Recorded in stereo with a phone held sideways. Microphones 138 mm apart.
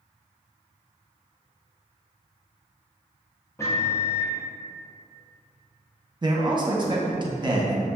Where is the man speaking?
35° right (ahead or behind), 0.8 m.